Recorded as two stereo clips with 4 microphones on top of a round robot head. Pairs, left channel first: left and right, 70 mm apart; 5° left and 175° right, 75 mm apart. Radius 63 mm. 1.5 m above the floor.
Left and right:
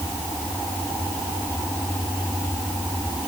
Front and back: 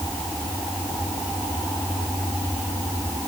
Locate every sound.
Only background noise.